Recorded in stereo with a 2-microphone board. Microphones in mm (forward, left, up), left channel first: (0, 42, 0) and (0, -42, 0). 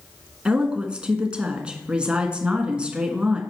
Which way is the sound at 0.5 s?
10° right (ahead or behind).